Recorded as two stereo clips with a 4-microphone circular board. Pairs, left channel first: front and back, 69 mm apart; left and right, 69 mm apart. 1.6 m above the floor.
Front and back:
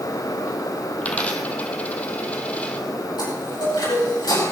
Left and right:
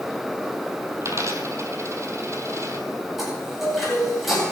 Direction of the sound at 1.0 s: 60° right.